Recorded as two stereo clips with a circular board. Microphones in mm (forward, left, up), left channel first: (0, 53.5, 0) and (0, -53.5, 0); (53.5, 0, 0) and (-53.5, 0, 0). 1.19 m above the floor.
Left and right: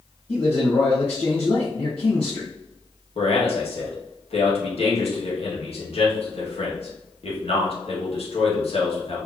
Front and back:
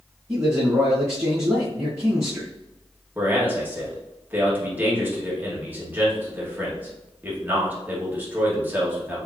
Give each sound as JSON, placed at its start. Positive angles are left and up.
{"t": 0.3, "sound": "a man speaking", "azimuth_deg": 115, "distance_m": 1.5}
{"t": 3.1, "sound": "a man speaking", "azimuth_deg": 110, "distance_m": 1.9}